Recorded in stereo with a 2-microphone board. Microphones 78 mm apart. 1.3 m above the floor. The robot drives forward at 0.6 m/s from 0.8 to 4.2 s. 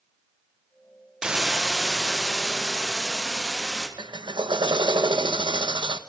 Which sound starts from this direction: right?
A drill, at 4.0 s.